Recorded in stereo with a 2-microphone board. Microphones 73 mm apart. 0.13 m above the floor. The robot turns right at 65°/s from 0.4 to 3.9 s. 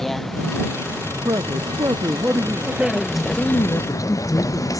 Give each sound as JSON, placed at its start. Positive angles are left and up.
{"t": 0.0, "sound": "a vehicle", "side_deg": 5}
{"t": 1.2, "sound": "a man speaking", "azimuth_deg": -100}
{"t": 3.3, "sound": "a man speaking", "azimuth_deg": 30}